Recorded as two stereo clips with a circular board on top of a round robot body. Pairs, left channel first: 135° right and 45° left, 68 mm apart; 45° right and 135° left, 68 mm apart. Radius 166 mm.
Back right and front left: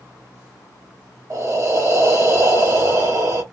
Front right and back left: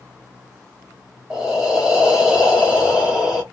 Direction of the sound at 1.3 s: 60° left.